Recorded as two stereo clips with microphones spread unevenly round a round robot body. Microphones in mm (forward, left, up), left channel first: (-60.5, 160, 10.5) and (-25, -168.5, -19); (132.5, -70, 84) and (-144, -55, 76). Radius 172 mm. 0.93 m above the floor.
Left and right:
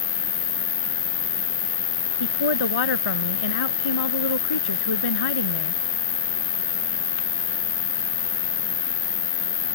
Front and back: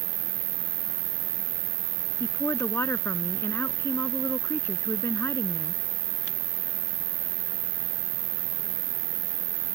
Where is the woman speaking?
80° left.